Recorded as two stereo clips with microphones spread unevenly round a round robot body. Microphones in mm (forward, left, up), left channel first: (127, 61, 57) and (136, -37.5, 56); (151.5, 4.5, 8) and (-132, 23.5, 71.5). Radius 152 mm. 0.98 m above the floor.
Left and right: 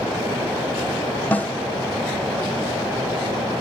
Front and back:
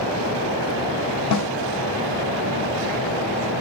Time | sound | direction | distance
1.3 | a snare drum | 25° left | 1.1 m